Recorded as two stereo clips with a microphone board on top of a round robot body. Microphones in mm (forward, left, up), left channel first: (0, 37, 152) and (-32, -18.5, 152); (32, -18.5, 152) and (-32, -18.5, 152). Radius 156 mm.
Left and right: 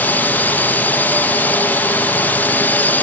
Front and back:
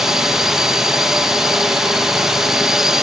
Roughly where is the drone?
Left.